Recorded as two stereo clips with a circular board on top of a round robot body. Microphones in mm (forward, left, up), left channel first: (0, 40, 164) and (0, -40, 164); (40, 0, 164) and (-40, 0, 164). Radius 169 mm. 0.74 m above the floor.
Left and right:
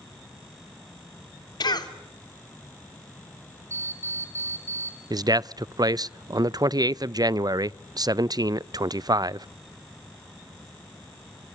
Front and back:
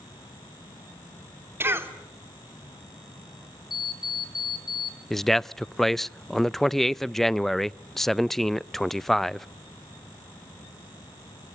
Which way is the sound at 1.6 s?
120° left.